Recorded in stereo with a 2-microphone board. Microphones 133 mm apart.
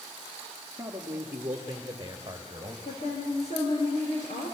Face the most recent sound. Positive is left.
turn(degrees=60)  # may be behind; listen again after turning